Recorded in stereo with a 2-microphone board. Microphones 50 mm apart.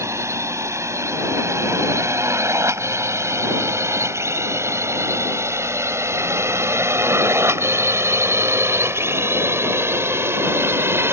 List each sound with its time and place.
0.0 s a drone: 75° right (ahead or behind); by 11.1 s 55° right (ahead or behind)